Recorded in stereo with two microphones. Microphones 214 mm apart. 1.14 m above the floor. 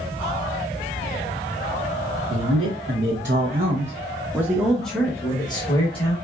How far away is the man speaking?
About 1.1 m.